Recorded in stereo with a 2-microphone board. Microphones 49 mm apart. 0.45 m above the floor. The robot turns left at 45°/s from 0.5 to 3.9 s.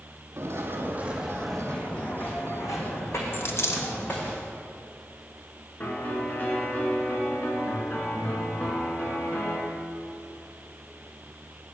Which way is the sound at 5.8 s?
35° left (ahead or behind).